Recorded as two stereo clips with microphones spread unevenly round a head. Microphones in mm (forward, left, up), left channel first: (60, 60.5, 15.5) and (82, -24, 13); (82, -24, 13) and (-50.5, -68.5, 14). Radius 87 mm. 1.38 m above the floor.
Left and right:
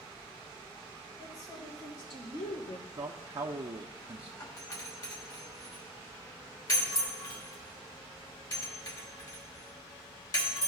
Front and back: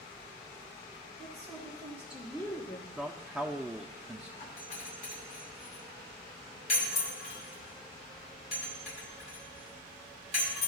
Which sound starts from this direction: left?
A doorbell, at 4.4 s.